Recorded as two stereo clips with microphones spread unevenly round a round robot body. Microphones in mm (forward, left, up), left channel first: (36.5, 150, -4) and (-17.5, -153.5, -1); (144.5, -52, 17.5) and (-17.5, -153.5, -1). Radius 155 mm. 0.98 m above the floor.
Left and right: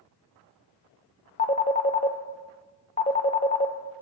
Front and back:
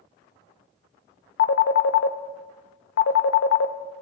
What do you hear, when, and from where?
1.4 s a phone ringing: 10° left, 0.7 m